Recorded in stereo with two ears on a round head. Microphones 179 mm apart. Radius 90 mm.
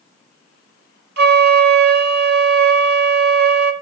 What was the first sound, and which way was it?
A flute, 55° right (ahead or behind).